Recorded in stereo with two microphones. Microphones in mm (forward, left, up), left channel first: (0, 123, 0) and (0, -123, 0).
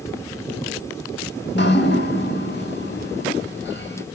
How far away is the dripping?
About 0.7 m.